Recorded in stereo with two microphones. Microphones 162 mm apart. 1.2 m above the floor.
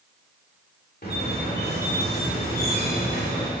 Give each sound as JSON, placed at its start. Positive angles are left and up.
{"t": 1.0, "sound": "a squeak", "side_deg": 65, "distance_m": 2.5}